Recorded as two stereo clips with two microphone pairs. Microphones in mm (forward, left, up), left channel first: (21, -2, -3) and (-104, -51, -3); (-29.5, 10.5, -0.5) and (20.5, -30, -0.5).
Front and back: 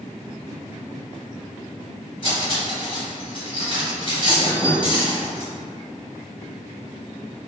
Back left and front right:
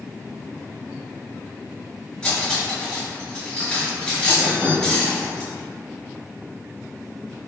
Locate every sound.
2.2 s cutlery clinking: 70° left, 1.5 m